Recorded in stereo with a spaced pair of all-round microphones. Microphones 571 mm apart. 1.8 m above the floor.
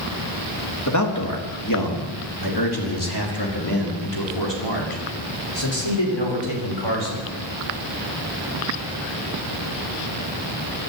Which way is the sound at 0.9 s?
30° left (ahead or behind).